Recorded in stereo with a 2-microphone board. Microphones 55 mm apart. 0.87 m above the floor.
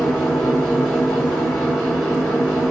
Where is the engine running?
5° left (ahead or behind), 2.5 m.